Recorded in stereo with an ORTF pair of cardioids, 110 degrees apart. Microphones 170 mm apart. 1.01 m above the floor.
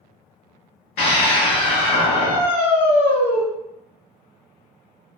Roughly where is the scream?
Ahead left.